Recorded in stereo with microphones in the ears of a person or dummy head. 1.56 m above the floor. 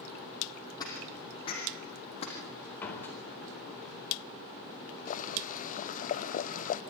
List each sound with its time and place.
0.8 s footsteps: 20° left (ahead or behind), 4.5 m; by 2.4 s 30° left (ahead or behind), 4.5 m
2.8 s a door slam: 10° left (ahead or behind), 4 m
5.1 s boiling: 35° left (ahead or behind), 0.6 m